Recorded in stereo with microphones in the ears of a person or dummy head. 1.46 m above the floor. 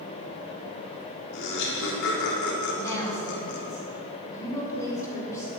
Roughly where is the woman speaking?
Centre.